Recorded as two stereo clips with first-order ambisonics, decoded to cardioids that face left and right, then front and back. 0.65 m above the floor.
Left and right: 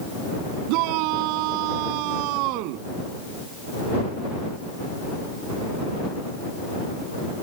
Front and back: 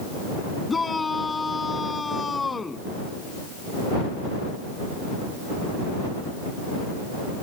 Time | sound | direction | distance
0.7 | a shout | 75° right | ?